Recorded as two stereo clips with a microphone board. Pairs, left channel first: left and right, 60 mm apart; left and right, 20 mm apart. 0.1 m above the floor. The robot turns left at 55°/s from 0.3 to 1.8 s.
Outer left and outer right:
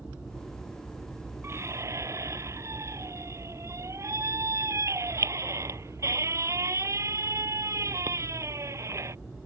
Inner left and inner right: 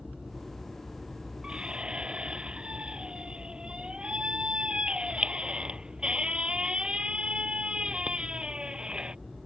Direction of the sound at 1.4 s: 45° right (ahead or behind).